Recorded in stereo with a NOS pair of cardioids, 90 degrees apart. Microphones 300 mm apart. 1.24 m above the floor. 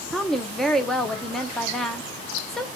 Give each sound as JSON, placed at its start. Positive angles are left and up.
{"t": 0.1, "sound": "a woman speaking", "azimuth_deg": 0, "distance_m": 1.0}